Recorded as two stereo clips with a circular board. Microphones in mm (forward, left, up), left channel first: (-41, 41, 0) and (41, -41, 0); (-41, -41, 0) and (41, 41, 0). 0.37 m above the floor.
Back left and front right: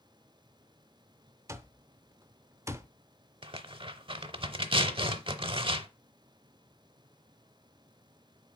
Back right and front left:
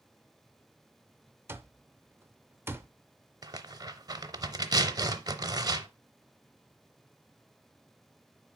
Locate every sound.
1.5 s an alarm clock: 5° right, 0.5 m
3.4 s tearing paper: 10° right, 0.5 m